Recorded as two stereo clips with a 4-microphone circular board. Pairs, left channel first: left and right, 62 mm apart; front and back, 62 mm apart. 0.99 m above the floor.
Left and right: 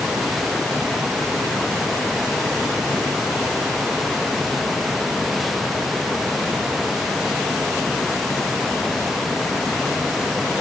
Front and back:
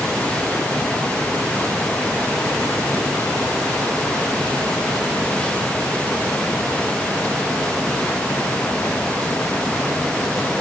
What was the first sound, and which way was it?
Only background noise.